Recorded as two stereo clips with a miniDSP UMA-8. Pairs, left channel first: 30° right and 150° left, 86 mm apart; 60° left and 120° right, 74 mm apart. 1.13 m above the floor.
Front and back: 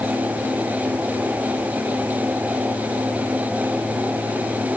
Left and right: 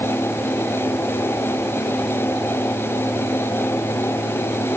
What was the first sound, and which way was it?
Only background noise.